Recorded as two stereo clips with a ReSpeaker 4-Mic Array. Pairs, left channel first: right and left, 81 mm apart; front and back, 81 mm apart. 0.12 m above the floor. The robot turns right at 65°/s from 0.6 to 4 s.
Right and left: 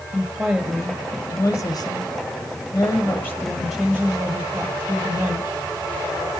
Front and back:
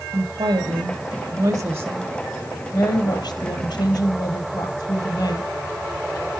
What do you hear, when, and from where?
0.1 s a woman speaking: 160° left, 3 m; by 5.5 s 20° left, 3 m